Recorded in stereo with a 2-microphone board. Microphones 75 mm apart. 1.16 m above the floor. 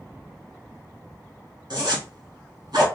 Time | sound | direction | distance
1.7 | a zipper | 75° right (ahead or behind) | 1.8 m